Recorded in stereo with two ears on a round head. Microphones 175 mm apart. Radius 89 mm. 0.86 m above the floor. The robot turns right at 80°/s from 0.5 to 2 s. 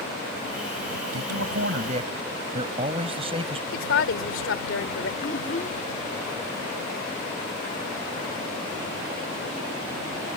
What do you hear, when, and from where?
1.1 s a man speaking: 100° right; by 3.6 s 30° right
3.7 s a woman speaking: 65° left (ahead or behind)
5.2 s a child speaking: 35° left (ahead or behind)